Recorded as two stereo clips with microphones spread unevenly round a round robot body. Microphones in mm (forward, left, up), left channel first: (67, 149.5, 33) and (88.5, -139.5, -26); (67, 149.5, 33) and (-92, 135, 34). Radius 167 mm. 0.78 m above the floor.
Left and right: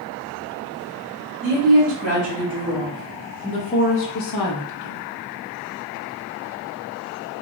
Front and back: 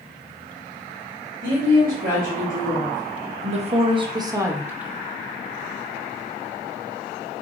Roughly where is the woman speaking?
Behind right.